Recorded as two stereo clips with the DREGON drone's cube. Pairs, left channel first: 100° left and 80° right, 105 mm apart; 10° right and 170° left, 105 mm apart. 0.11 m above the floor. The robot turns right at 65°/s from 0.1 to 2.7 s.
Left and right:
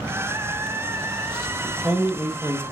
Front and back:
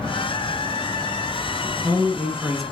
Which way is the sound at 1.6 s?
160° right.